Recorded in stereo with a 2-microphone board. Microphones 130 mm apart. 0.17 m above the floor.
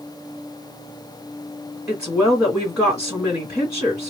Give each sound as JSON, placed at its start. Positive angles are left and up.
{"t": 1.9, "sound": "a woman speaking", "side_deg": -5, "distance_m": 1.8}